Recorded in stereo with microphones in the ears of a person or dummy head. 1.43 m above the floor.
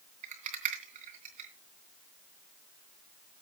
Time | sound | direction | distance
0.2 | a rattle | 45° right (ahead or behind) | 2.5 m